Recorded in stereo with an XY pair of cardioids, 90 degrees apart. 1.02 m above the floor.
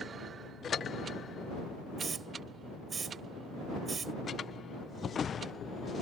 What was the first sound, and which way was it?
A hiss, 45° right.